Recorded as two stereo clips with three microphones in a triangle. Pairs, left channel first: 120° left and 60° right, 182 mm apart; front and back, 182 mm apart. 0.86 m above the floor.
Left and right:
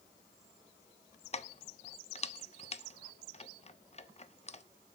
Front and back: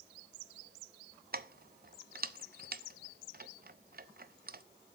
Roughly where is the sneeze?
I don't hear a sneeze.